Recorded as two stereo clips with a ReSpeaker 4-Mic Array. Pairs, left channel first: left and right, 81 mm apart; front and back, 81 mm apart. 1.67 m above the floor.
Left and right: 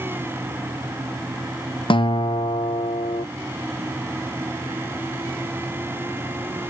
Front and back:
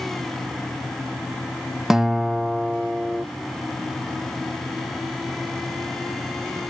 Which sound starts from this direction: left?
A guitar, at 1.9 s.